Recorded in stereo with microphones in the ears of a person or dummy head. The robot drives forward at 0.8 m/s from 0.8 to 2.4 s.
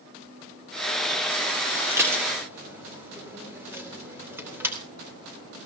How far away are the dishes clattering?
About 2.5 m.